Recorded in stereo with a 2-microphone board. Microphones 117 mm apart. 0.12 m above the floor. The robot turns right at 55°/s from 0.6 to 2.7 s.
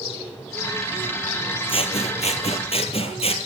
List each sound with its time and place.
1.7 s scissors: 55° left, 1.5 m; by 3.4 s 115° left, 1.5 m